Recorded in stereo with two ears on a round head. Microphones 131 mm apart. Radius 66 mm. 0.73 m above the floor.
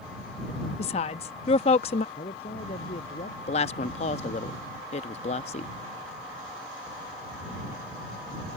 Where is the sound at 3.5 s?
45° left (ahead or behind).